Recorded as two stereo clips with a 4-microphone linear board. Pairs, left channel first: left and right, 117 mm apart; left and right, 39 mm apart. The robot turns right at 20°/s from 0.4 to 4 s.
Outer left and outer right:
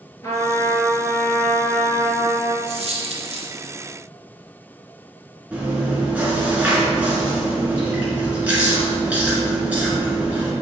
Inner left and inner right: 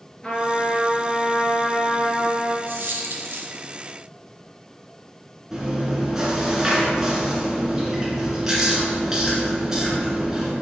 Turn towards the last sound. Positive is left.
turn(degrees=-10)  # may be behind; listen again after turning